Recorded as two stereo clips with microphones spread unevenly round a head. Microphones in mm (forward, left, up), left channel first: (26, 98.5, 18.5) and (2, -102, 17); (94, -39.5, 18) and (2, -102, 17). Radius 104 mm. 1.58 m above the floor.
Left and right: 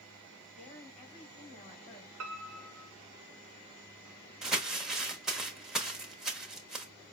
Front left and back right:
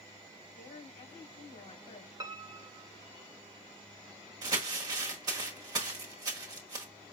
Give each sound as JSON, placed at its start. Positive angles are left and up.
{"t": 0.6, "sound": "a woman speaking", "azimuth_deg": 25, "distance_m": 3.5}
{"t": 2.2, "sound": "a piano", "azimuth_deg": -95, "distance_m": 0.7}
{"t": 4.4, "sound": "crumpling", "azimuth_deg": 175, "distance_m": 0.9}